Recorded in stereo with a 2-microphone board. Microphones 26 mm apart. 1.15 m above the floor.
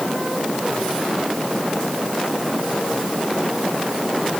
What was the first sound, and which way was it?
Only background noise.